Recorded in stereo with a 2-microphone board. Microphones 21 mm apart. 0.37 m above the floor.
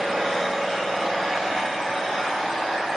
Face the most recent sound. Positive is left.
turn(degrees=25)  # may be behind; listen again after turning